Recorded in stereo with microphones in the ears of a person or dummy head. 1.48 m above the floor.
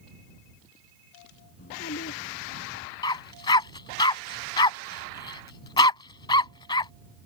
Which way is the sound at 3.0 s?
25° left (ahead or behind).